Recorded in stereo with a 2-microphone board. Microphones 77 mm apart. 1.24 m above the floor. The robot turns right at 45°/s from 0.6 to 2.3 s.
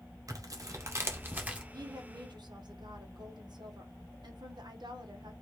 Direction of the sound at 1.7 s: 55° right (ahead or behind).